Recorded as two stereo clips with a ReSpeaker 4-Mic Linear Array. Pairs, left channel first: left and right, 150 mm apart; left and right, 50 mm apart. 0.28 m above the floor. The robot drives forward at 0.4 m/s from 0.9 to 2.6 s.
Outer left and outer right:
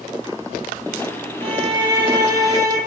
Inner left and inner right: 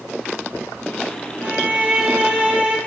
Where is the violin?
40° right (ahead or behind), 0.8 m; by 2.8 s 25° right (ahead or behind), 1.2 m.